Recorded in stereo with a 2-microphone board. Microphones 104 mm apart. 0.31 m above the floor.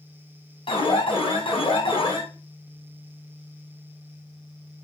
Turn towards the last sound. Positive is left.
turn(degrees=60)  # may be behind; listen again after turning